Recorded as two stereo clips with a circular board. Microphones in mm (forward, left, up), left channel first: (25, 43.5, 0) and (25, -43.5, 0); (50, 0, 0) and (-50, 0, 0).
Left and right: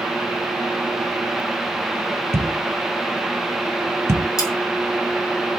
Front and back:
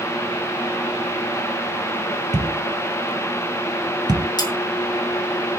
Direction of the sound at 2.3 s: 140° right.